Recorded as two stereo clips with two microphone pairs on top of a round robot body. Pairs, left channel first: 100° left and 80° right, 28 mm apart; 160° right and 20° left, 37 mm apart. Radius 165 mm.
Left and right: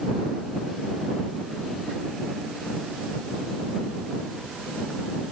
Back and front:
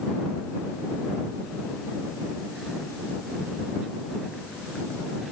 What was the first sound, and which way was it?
Only background noise.